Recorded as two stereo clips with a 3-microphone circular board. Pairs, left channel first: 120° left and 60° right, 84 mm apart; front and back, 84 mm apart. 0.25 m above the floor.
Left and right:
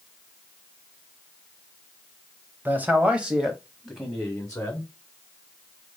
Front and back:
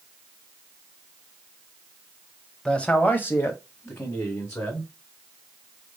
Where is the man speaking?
70° right, 1.0 m; by 4.9 s 45° left, 1.7 m.